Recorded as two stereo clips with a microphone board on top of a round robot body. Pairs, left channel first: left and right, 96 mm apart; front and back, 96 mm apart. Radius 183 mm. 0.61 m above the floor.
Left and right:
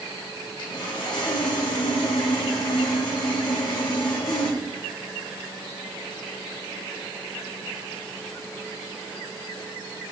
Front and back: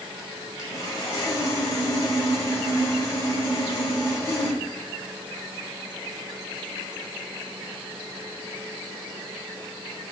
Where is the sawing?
50° left, 0.9 m.